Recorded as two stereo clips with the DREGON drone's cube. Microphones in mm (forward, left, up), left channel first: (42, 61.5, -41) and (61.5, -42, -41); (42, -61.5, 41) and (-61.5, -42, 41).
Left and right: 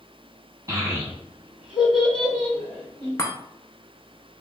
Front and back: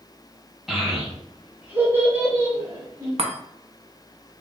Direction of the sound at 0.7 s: 105° right.